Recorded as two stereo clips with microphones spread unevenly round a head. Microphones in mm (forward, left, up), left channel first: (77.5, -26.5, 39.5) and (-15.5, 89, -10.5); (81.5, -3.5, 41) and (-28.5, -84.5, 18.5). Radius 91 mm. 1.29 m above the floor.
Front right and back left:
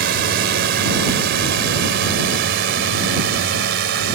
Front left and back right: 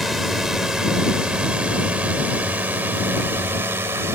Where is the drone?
130° left; by 4.2 s 140° left.